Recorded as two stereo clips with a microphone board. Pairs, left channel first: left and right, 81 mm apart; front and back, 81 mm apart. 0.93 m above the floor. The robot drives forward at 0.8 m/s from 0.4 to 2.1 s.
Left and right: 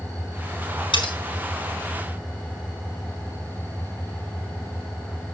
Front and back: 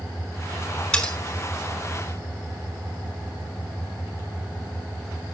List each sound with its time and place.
0.9 s cutlery clinking: 80° left, 5 m; by 1.1 s 85° left, 5 m